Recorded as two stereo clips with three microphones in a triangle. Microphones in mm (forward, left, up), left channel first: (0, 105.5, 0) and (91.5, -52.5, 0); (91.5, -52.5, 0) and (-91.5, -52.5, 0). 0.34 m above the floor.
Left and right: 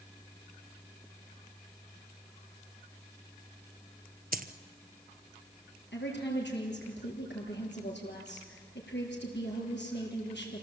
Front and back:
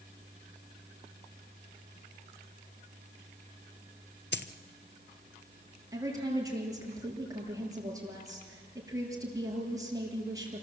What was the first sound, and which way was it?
A dropped coin, 20° right.